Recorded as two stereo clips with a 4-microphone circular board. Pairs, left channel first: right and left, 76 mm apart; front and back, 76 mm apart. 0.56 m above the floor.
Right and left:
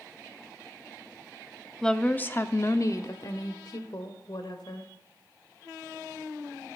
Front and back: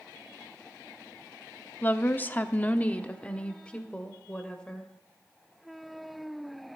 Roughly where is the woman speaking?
Ahead.